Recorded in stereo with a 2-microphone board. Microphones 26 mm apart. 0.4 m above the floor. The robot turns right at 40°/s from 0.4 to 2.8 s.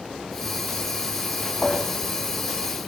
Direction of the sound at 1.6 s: 20° left (ahead or behind).